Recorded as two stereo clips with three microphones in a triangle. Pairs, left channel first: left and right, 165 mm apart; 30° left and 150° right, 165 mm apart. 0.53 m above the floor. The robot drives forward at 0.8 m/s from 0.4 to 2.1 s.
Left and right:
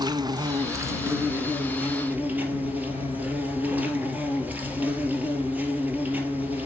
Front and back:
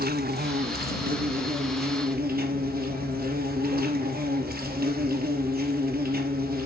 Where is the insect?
155° right, 0.9 m; by 6.7 s 170° right, 2 m.